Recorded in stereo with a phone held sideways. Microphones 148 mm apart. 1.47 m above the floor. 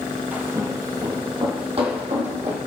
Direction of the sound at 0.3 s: 10° right (ahead or behind).